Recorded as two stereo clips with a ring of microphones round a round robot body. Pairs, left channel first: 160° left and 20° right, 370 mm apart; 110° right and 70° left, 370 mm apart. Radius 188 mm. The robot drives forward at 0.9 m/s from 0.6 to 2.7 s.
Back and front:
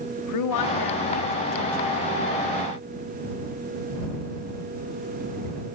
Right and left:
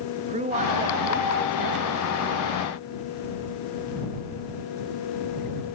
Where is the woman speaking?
135° left, 1.6 m; by 2.0 s 155° left, 2.5 m.